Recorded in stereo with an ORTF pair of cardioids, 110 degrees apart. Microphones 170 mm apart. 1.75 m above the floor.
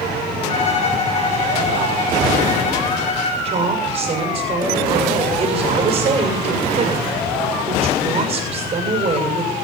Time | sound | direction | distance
0.5 | a violin | 40° left | 4 m
3.5 | a woman speaking | 30° right | 7 m